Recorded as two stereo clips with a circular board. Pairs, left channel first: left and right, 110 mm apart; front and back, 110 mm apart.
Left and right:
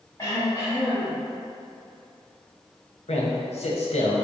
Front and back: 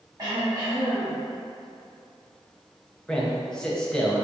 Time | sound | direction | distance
0.2 | throat clearing | 145° left | 1.6 m
3.1 | a man speaking | 85° left | 0.7 m